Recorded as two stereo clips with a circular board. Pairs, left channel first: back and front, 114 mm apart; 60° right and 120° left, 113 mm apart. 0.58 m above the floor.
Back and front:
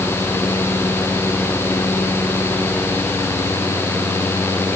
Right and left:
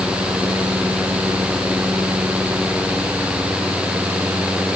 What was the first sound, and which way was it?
Only background noise.